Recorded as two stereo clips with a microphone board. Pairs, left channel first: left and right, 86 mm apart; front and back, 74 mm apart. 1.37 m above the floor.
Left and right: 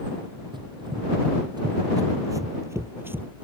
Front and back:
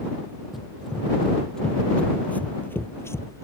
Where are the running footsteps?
95° right; by 3.4 s 25° right.